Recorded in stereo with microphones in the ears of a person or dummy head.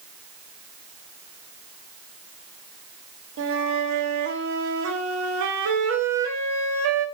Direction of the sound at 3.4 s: 70° right (ahead or behind).